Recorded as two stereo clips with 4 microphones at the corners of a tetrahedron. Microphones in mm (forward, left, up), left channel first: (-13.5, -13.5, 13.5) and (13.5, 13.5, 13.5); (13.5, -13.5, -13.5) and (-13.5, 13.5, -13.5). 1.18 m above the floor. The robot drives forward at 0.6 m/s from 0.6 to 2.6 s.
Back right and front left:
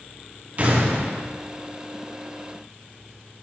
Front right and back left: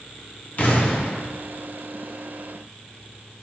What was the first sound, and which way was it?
An explosion, 5° right.